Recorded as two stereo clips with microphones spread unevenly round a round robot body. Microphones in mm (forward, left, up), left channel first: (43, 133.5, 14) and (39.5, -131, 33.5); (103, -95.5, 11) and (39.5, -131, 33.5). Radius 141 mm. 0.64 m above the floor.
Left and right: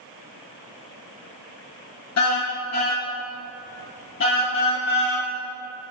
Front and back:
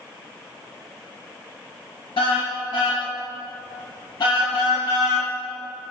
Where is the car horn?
60° left, 4.5 m; by 5.3 s 45° left, 9 m.